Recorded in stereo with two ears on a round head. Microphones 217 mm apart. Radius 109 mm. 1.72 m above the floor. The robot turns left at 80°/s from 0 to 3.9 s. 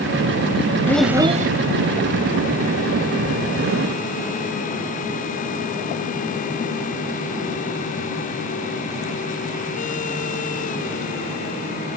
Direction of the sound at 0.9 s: 10° left.